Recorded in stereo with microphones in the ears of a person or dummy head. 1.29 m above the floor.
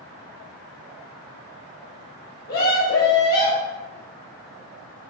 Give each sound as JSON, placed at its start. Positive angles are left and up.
{"t": 2.5, "sound": "a scream", "side_deg": 45, "distance_m": 1.5}